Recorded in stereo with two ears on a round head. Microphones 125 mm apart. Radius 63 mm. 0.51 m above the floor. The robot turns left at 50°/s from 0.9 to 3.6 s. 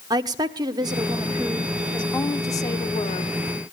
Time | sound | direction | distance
0.1 | a woman speaking | 140° right | 1.0 m